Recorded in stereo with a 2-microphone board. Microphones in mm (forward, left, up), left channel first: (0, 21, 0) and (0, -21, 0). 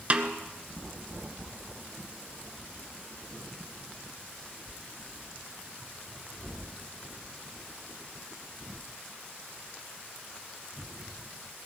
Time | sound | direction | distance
0.1 | a snare drum | 30° right (ahead or behind) | 0.9 m